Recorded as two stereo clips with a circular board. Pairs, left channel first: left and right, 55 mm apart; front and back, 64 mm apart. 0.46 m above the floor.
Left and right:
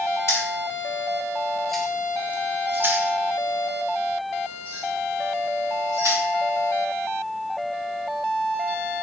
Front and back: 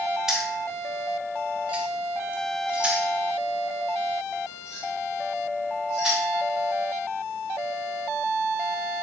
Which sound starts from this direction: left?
Keys jangling, at 0.3 s.